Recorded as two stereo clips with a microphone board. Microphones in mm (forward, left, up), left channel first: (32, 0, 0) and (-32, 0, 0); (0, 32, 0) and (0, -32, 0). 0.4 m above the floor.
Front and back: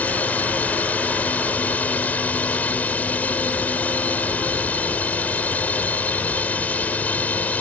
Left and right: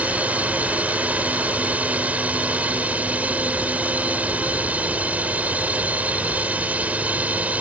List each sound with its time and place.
0.0 s a drone: 40° right